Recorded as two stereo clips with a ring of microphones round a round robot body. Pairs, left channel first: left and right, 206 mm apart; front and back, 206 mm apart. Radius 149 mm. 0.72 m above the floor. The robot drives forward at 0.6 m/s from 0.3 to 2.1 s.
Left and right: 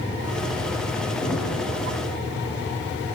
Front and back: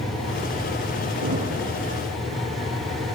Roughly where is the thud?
Behind.